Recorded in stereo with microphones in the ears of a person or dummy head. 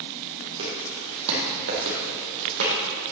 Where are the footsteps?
60° right (ahead or behind), 3 m; by 2.7 s 65° right (ahead or behind), 3.5 m.